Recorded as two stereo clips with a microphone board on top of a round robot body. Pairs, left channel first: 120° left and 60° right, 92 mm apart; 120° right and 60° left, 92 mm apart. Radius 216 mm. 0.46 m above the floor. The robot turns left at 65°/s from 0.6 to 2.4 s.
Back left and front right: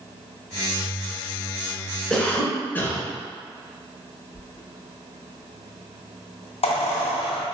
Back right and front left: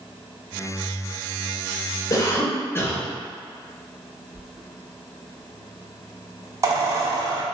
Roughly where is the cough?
Behind.